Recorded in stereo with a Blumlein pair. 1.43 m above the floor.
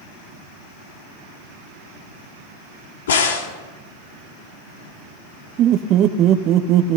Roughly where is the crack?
Ahead left.